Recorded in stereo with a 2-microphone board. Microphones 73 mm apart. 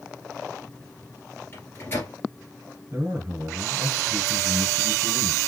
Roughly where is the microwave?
Left.